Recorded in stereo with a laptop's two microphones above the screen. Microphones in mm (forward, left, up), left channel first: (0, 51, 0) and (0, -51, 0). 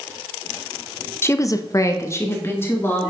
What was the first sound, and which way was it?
A woman speaking, 25° left (ahead or behind).